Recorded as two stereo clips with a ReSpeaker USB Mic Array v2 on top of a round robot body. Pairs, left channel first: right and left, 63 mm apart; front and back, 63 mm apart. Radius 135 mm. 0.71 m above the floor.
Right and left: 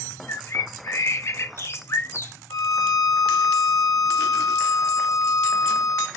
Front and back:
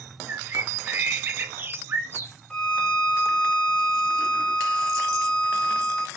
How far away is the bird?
About 0.6 m.